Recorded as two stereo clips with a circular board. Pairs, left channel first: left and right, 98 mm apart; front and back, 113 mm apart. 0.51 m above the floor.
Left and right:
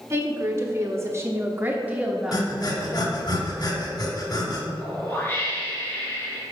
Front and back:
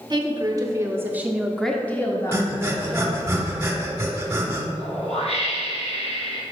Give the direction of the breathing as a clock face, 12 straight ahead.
8 o'clock.